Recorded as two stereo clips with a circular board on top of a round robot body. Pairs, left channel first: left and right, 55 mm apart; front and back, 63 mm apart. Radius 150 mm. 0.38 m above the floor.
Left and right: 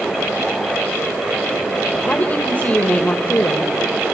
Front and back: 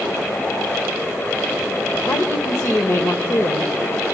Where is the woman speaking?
35° left, 2 m.